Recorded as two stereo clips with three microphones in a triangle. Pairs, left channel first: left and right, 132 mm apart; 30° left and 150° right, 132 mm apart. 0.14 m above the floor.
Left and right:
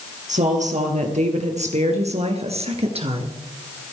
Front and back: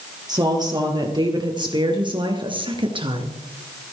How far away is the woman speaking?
About 4 m.